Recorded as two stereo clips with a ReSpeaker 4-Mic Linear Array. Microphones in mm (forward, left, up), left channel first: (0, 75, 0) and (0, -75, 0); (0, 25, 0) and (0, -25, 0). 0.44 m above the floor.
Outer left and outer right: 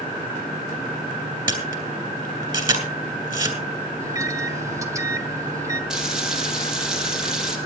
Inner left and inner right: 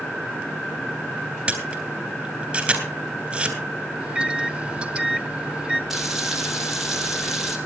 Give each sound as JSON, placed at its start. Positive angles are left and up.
{"t": 1.5, "sound": "a camera shutter", "side_deg": -30, "distance_m": 3.0}
{"t": 4.0, "sound": "a microwave", "side_deg": -20, "distance_m": 1.1}
{"t": 5.9, "sound": "frying", "side_deg": -5, "distance_m": 3.5}